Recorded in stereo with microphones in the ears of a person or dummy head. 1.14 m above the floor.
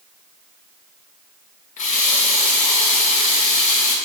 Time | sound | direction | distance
1.8 | a running tap | 45° left (ahead or behind) | 1.2 m